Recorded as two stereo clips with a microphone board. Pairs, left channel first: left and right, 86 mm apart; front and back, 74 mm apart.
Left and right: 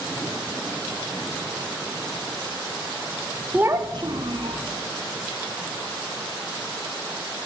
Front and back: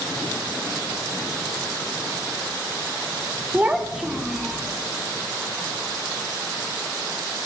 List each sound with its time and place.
3.5 s a child speaking: 145° right, 0.5 m; by 4.6 s 95° right, 1.4 m